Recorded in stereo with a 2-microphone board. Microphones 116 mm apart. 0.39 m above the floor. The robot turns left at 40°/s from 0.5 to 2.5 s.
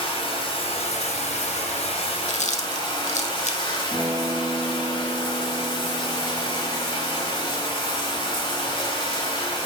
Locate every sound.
0.0 s running water: 125° left, 1.6 m; by 9.7 s 45° left, 1.6 m
2.3 s chewing: 80° left, 0.6 m; by 3.8 s 75° left (ahead or behind), 0.6 m
3.9 s a guitar: 10° left (ahead or behind), 2.5 m